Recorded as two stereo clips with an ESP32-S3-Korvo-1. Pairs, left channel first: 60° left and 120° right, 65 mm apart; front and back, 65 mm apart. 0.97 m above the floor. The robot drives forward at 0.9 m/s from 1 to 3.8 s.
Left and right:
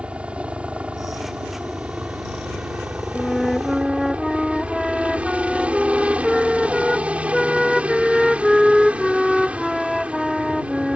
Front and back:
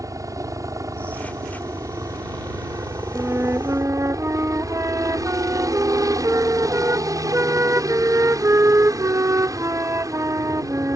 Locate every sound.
0.0 s a helicopter: 170° left
3.1 s a flute: 130° left; by 11.0 s 150° left